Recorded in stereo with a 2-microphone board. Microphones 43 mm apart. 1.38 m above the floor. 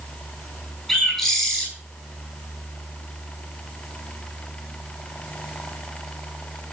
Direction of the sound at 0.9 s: Centre (ahead or behind).